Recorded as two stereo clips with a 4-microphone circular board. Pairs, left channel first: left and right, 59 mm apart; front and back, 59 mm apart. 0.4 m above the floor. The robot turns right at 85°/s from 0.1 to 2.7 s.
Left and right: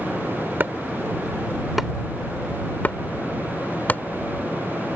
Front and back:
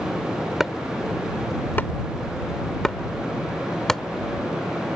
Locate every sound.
0.6 s chopping: 105° right; by 4.0 s 75° left